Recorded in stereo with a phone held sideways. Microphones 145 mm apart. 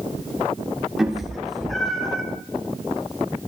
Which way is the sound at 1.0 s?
5° right (ahead or behind).